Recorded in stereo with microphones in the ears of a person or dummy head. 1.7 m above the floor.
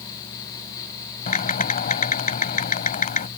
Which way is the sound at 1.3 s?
40° left (ahead or behind).